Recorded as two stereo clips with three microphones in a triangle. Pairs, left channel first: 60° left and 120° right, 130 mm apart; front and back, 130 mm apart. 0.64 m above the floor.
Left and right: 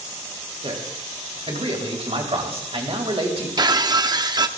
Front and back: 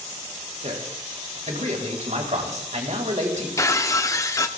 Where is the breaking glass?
65° right, 0.6 m.